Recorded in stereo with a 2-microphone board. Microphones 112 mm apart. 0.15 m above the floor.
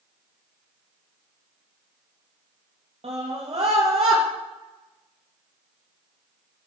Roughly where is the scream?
Right.